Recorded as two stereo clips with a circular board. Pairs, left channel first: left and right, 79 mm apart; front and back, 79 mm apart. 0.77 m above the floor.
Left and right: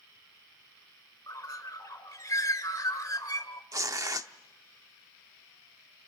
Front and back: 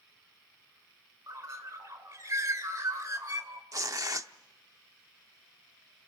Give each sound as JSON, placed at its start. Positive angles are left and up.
{"t": 1.3, "sound": "a bird", "azimuth_deg": 130, "distance_m": 2.0}
{"t": 3.7, "sound": "tearing paper", "azimuth_deg": -135, "distance_m": 0.7}